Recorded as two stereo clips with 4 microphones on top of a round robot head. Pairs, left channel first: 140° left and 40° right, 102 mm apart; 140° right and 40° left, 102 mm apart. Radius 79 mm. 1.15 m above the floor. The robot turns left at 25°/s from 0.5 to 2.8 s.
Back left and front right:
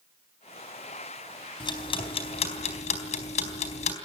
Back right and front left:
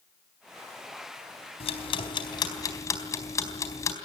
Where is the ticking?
170° right, 4 m; by 4.0 s 160° left, 4 m.